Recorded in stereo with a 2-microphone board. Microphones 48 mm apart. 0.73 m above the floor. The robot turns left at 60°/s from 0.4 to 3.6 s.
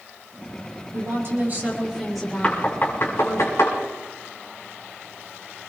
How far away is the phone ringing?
I don't hear a phone ringing.